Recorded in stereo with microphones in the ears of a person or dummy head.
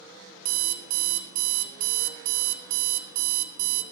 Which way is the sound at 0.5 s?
50° right (ahead or behind).